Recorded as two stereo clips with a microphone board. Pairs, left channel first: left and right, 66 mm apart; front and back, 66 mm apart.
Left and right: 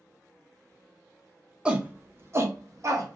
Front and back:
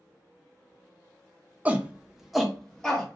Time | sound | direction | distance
1.6 | a shout | 145° right | 0.6 m